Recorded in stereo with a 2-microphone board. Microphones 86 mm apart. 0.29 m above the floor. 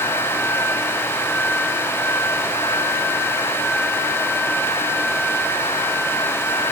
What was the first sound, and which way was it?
Only background noise.